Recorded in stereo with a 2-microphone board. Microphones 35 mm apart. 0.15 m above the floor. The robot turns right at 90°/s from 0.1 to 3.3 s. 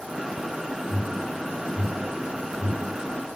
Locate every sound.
0.8 s an alarm: 70° left (ahead or behind), 7.5 m; by 3.0 s 60° right (ahead or behind), 7.5 m